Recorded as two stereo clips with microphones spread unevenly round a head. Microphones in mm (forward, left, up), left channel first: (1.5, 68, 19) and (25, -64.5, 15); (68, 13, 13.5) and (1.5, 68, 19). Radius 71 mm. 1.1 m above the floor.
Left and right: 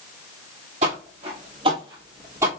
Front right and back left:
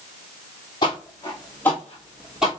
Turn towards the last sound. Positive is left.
turn(degrees=-145)